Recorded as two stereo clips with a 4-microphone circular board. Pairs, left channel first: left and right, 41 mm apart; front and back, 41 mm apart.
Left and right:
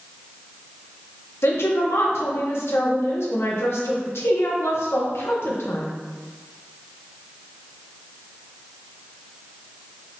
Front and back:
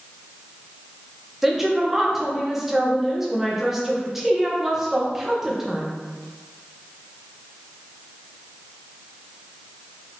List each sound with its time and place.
1.4 s a woman speaking: 100° left, 1.0 m